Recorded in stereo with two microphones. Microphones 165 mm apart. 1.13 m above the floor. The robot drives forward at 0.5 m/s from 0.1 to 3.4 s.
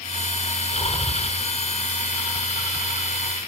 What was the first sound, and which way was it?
Breathing, 25° left (ahead or behind).